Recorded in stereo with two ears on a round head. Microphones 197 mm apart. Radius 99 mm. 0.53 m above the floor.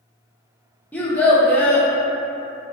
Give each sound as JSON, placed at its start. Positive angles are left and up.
{"t": 0.9, "sound": "a child speaking", "side_deg": 5, "distance_m": 0.6}